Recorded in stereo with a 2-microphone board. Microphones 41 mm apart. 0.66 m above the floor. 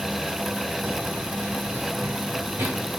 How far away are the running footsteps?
About 0.9 m.